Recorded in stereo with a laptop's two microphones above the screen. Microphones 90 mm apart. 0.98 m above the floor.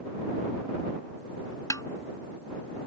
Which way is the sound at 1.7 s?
40° left (ahead or behind).